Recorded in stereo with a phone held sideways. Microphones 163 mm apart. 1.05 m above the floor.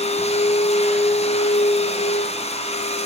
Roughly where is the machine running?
Left.